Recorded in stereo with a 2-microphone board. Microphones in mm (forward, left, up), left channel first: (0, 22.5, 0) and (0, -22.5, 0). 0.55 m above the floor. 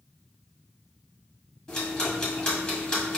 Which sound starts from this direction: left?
Ticking, at 1.7 s.